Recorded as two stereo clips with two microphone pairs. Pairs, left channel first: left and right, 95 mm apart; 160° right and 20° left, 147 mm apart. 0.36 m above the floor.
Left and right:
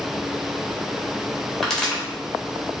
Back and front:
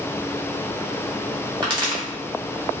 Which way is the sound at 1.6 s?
5° left.